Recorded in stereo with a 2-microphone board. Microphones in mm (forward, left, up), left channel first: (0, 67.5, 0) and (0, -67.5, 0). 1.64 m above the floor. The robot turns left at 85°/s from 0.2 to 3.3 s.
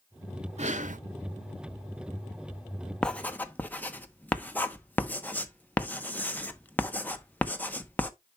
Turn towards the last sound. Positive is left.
turn(degrees=15)  # may be behind; listen again after turning